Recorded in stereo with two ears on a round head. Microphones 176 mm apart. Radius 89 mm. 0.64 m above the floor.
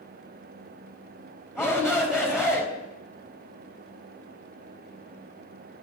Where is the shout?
5° right (ahead or behind), 4 m.